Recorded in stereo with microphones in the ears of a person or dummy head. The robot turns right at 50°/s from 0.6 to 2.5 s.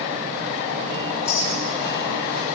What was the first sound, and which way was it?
A clink, 25° left (ahead or behind).